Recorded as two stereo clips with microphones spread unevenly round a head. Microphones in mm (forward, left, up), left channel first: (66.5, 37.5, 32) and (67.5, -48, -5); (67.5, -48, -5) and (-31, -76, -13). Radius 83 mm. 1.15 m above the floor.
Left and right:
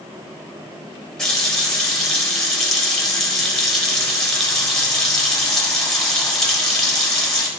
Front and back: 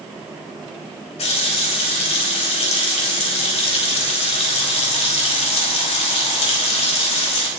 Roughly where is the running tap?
Ahead.